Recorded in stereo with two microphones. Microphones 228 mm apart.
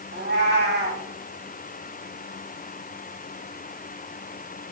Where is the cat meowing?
50° right (ahead or behind), 1.8 m.